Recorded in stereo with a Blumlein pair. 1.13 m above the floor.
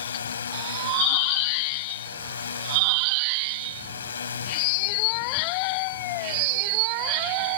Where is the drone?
70° left.